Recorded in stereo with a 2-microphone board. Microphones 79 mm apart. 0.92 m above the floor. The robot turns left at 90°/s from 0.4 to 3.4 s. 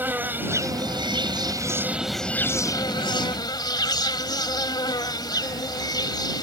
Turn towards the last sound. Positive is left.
turn(degrees=65)